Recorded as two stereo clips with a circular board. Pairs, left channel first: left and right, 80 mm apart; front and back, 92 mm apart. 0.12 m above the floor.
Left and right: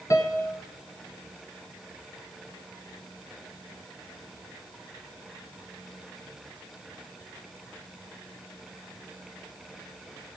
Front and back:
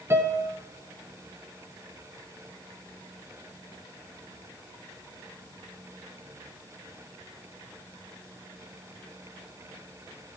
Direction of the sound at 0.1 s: 125° left.